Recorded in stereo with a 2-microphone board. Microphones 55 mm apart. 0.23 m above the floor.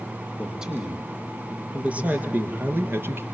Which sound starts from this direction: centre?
A man speaking, at 0.4 s.